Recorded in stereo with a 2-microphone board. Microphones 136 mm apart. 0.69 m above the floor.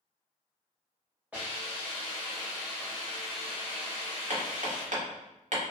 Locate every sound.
1.3 s a hiss: 10° right (ahead or behind), 1.2 m
4.3 s hammering: 65° right (ahead or behind), 0.8 m